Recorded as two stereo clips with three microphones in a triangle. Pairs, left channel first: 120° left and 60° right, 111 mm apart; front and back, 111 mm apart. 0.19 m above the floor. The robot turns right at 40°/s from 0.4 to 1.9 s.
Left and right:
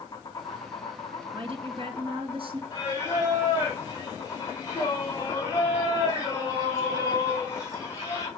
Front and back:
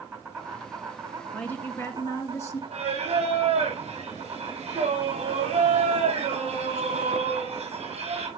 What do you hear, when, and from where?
0.0 s an insect: 115° left, 2.5 m; by 8.4 s 175° left, 2.5 m
1.3 s a woman speaking: 80° right, 2 m; by 2.6 s 55° right, 2 m
2.7 s singing: straight behind, 3 m